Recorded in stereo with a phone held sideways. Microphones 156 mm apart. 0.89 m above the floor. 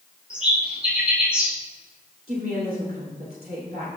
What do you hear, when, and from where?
0.3 s a bird: 5° right (ahead or behind), 4 m
2.3 s a woman speaking: 70° right (ahead or behind), 3 m